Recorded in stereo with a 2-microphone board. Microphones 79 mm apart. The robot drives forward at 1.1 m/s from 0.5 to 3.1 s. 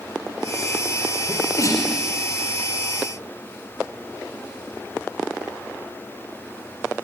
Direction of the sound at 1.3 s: 40° left (ahead or behind).